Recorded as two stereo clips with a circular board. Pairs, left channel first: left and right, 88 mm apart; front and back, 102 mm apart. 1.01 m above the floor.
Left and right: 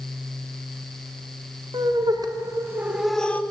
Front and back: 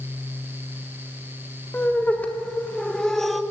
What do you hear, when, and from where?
1.7 s laughter: 70° right, 1.3 m; by 3.4 s 90° left, 0.7 m